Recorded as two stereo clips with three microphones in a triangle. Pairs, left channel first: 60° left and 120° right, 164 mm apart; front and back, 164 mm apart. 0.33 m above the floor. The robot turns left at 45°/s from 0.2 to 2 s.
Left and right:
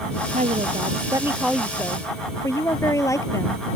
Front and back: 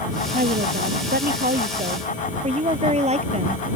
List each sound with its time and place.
0.3 s a woman speaking: 155° right; by 3.8 s 130° left